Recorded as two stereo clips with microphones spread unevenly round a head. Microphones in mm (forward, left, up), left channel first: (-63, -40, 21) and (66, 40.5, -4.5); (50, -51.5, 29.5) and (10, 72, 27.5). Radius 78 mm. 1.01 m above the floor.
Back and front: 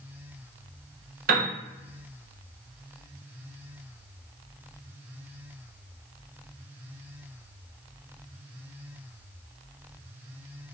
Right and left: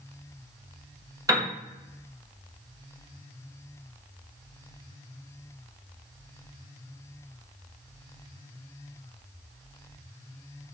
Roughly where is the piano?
Ahead left.